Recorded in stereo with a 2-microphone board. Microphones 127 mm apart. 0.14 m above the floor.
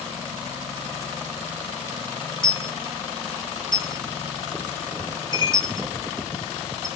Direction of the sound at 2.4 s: 40° left (ahead or behind).